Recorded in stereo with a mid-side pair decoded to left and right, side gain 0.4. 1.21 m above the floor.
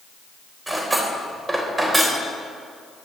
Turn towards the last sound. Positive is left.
turn(degrees=-20)